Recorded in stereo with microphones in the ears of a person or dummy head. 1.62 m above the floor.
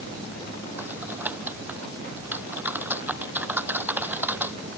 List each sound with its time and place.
0.8 s typing on a keyboard: 10° right (ahead or behind)